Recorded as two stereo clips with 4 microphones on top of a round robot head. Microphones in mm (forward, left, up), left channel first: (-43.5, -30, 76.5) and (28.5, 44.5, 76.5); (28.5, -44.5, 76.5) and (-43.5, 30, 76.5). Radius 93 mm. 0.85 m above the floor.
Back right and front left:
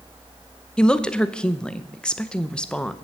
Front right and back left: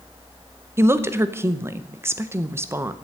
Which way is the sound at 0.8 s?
155° left.